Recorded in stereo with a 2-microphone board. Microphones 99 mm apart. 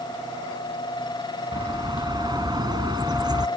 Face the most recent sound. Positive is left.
turn(degrees=-45)  # may be behind; listen again after turning